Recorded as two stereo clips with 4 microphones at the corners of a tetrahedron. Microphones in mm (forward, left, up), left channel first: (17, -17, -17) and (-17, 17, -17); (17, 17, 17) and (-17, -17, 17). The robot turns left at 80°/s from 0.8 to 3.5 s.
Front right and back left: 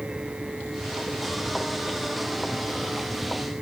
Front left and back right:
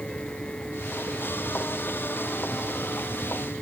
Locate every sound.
Only background noise.